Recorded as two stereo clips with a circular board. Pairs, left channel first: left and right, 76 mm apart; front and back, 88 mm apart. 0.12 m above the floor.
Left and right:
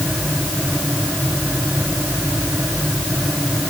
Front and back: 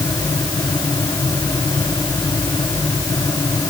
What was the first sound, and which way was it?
Only background noise.